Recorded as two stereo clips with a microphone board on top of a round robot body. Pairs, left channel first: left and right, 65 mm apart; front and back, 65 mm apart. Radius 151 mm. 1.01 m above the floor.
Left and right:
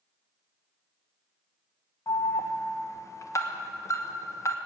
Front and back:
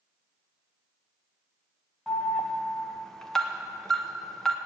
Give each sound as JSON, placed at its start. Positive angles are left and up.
{"t": 2.1, "sound": "an alarm", "azimuth_deg": 85, "distance_m": 1.2}